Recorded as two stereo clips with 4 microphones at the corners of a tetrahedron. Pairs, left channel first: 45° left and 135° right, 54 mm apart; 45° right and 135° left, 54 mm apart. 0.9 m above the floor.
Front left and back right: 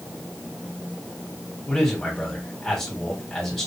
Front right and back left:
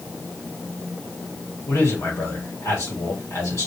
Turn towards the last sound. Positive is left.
turn(degrees=-30)